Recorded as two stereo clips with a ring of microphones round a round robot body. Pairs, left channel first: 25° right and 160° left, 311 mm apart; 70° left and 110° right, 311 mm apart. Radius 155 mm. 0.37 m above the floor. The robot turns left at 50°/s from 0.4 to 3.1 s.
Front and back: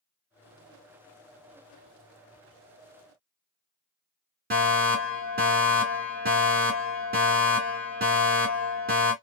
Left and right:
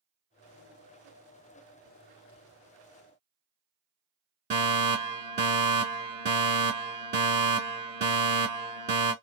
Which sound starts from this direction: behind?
A fire alarm, at 4.5 s.